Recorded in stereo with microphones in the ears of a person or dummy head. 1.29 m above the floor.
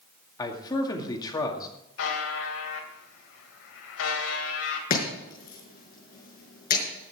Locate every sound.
0.4 s a man speaking: 20° left (ahead or behind), 2 m
2.0 s a buzzer: 70° left (ahead or behind), 2.5 m
4.9 s chopping: 50° left (ahead or behind), 6 m